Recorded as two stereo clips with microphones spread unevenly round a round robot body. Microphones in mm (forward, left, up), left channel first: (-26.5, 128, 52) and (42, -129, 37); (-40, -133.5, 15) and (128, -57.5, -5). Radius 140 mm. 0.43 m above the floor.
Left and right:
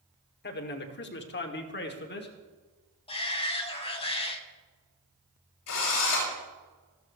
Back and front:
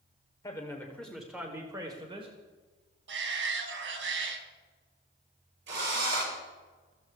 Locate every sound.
0.4 s a man speaking: 135° left, 1.8 m; by 2.4 s 70° left, 1.9 m
3.1 s a shout: 35° left, 3 m
5.7 s a drill: 75° left, 8 m